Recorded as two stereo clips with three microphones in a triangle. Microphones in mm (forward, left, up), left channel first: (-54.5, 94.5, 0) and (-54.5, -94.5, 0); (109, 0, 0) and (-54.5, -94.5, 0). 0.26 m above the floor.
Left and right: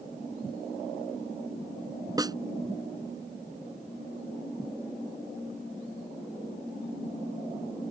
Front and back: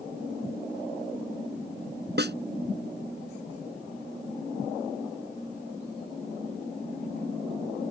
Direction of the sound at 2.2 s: 160° right.